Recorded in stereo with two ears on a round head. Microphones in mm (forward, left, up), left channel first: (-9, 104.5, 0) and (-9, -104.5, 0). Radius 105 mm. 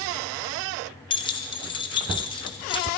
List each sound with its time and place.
1.1 s keys jangling: 20° left (ahead or behind), 0.8 m